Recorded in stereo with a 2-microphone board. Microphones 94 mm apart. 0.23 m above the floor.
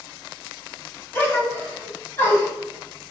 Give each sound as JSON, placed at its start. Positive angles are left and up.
{"t": 1.1, "sound": "a gasp", "side_deg": 25, "distance_m": 1.2}